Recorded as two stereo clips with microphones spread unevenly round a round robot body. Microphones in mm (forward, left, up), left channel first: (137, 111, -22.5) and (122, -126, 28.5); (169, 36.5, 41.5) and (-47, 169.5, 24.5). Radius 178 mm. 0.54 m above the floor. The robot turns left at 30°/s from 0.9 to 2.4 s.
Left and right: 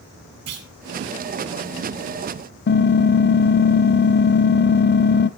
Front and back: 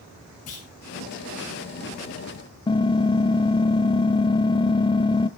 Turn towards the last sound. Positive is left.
turn(degrees=35)